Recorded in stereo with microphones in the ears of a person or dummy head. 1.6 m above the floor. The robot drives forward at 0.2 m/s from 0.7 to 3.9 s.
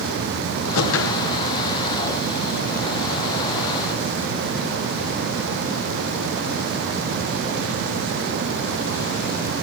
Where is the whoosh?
75° left (ahead or behind), 1.2 m; by 1.3 s 70° left (ahead or behind), 1.2 m.